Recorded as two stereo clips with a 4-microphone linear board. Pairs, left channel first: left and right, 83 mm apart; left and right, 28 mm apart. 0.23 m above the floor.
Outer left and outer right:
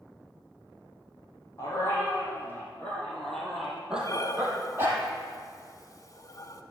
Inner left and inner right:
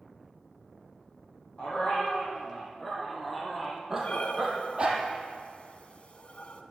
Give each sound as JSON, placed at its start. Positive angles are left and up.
{"t": 1.6, "sound": "a dog barking", "side_deg": 35, "distance_m": 3.5}
{"t": 4.0, "sound": "breathing", "side_deg": 45, "distance_m": 0.9}